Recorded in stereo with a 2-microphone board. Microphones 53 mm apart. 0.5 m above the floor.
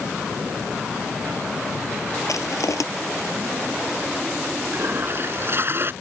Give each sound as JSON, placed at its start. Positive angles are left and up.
{"t": 2.3, "sound": "crushing", "side_deg": 90}
{"t": 4.7, "sound": "a toilet flushing", "side_deg": -45}